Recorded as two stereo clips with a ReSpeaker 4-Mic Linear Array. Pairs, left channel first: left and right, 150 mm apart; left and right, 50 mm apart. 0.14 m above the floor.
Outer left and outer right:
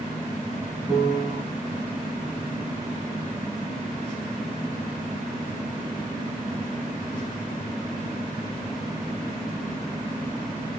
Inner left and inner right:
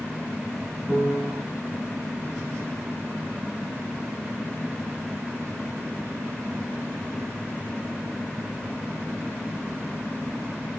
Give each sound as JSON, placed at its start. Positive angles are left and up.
{"t": 0.9, "sound": "a piano", "side_deg": -30, "distance_m": 5.5}